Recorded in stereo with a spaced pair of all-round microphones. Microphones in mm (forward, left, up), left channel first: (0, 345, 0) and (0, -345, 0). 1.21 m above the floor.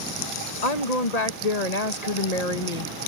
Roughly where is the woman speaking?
Left.